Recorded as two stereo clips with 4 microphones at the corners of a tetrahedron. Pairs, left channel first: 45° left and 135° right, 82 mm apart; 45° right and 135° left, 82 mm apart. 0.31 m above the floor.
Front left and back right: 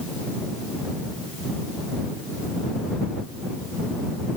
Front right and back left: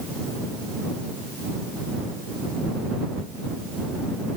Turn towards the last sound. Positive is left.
No sound to turn to.